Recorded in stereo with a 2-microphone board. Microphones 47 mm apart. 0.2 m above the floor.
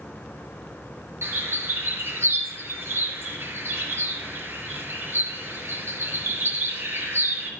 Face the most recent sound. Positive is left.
turn(degrees=-65)  # may be behind; listen again after turning